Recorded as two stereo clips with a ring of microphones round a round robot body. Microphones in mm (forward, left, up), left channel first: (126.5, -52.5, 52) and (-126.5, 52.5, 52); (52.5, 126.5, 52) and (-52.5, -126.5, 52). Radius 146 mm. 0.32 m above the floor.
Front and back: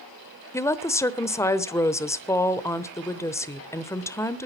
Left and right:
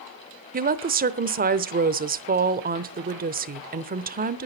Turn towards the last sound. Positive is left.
turn(degrees=-95)